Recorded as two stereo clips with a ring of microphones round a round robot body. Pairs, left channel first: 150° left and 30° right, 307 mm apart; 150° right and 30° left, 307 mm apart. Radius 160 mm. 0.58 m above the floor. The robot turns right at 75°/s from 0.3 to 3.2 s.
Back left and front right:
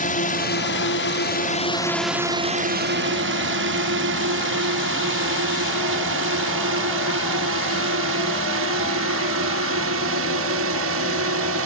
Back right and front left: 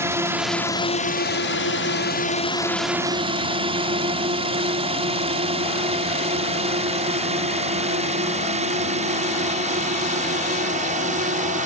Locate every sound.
0.0 s a drone: 105° left; by 11.7 s 25° right